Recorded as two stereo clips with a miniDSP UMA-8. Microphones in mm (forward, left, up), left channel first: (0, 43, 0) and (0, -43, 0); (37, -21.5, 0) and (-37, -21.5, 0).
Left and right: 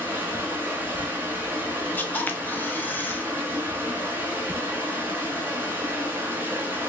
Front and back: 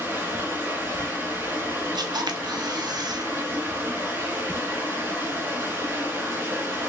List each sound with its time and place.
0.0 s running water: 140° right, 1.1 m
1.9 s a camera shutter: 160° left, 0.5 m